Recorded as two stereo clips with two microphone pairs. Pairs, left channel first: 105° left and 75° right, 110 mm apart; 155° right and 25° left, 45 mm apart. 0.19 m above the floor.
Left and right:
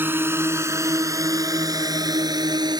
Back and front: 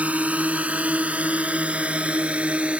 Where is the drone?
10° right; by 2.8 s 30° right.